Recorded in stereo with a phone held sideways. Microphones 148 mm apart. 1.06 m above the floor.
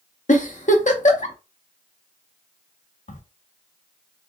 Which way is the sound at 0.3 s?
55° left (ahead or behind).